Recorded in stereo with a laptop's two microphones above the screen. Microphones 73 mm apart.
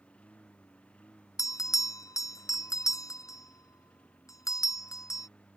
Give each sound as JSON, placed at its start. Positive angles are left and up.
{"t": 0.0, "sound": "a lawn mower", "side_deg": 15}
{"t": 1.4, "sound": "a bell", "side_deg": 50}